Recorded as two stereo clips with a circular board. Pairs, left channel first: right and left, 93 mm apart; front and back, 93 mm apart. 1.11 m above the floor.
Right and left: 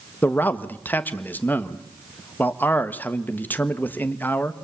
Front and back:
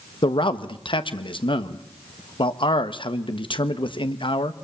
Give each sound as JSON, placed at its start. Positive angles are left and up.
{"t": 0.2, "sound": "a man speaking", "azimuth_deg": -20, "distance_m": 1.3}